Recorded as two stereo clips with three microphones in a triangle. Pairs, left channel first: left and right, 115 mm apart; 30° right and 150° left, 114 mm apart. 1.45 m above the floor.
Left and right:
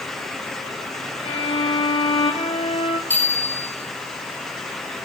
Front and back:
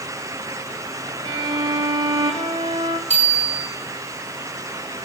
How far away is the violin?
About 1.2 m.